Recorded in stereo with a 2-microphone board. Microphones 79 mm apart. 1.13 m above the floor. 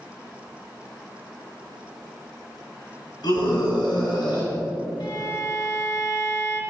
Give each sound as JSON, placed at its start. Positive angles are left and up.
{"t": 3.2, "sound": "a scream", "side_deg": 70, "distance_m": 6.0}
{"t": 5.0, "sound": "a violin", "side_deg": 65, "distance_m": 2.0}